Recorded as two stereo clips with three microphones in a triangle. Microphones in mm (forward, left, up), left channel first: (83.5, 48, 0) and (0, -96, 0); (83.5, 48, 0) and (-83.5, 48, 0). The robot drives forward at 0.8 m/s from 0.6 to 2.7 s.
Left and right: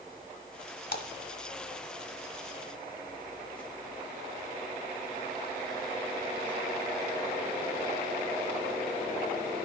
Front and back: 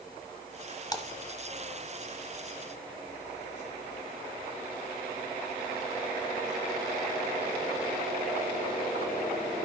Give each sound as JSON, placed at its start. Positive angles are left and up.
{"t": 0.9, "sound": "a splash", "azimuth_deg": 65, "distance_m": 1.0}